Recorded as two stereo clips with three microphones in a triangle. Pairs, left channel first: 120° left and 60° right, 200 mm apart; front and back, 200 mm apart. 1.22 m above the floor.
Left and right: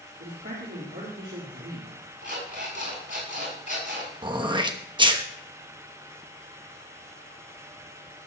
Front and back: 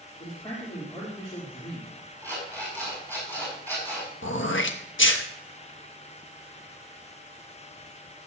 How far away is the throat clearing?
About 1.1 m.